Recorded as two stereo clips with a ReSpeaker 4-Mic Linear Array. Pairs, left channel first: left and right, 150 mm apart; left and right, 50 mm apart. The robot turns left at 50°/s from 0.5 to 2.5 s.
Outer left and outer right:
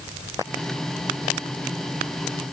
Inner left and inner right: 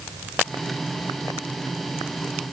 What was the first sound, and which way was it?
Only background noise.